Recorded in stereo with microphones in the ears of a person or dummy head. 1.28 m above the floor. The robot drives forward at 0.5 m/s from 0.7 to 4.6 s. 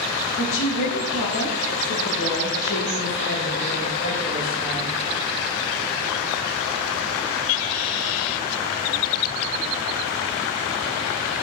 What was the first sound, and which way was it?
A woman speaking, 75° left (ahead or behind).